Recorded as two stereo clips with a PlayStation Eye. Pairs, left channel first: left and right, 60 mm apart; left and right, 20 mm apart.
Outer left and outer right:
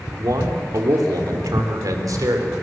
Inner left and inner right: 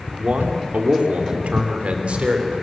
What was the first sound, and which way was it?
A man speaking, 75° right (ahead or behind).